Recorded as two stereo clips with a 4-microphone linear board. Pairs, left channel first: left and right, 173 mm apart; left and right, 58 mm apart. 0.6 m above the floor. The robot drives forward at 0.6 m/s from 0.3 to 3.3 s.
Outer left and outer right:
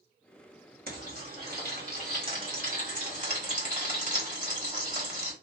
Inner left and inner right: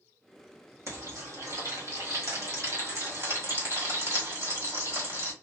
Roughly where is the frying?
Right.